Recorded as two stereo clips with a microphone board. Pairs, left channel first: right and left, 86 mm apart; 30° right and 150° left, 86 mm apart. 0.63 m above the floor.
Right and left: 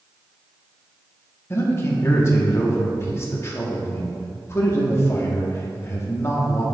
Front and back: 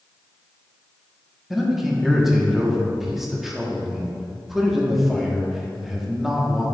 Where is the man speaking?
125° right, 1.2 m.